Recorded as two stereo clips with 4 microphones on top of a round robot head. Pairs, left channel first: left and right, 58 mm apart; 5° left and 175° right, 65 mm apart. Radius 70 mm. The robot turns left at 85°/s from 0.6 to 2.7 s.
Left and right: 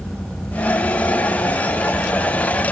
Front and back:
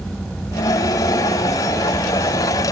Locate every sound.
Only background noise.